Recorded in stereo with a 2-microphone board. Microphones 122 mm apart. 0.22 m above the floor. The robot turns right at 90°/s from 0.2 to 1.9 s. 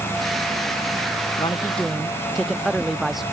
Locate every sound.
1.4 s a man speaking: 135° left; by 3.2 s straight behind